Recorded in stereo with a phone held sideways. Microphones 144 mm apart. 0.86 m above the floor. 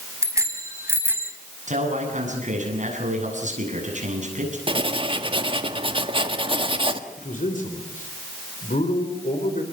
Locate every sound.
0.2 s a bicycle bell: 20° right (ahead or behind), 4.5 m; by 1.3 s 15° right (ahead or behind), 4 m
1.7 s a man speaking: 60° right (ahead or behind), 8 m
4.7 s writing: 40° right (ahead or behind), 1.6 m
7.2 s a man speaking: 65° left (ahead or behind), 3.5 m